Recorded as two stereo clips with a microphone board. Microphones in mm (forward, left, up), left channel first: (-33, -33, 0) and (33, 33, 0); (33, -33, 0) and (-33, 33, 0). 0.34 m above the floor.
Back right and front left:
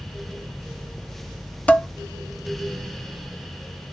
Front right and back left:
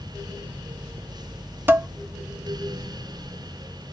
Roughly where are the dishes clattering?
Behind.